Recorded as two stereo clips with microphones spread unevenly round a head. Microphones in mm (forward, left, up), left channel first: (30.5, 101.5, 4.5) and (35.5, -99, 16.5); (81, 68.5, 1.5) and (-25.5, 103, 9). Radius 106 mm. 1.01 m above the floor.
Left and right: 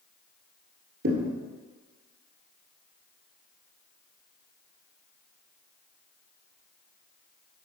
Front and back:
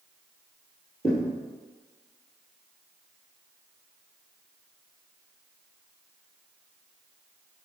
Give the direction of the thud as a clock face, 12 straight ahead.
3 o'clock.